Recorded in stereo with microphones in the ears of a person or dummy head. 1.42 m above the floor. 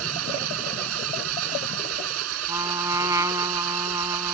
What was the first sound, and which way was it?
An engine running, 80° right.